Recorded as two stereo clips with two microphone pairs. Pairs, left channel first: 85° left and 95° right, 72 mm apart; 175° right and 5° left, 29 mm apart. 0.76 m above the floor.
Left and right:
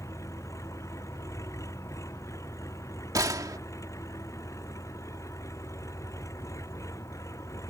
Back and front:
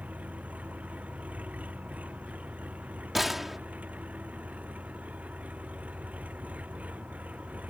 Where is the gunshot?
75° right.